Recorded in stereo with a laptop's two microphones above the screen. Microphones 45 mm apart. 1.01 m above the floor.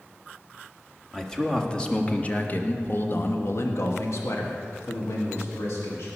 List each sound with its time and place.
1.1 s a man speaking: 10° left (ahead or behind), 1.7 m; by 6.1 s 70° left (ahead or behind), 2 m